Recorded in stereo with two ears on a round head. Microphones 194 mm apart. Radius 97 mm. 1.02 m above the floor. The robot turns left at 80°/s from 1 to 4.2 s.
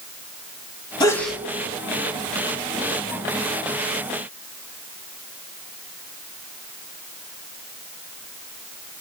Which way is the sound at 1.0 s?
25° left.